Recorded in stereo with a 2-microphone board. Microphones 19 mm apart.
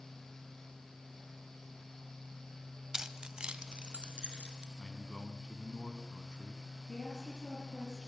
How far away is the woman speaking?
About 7 m.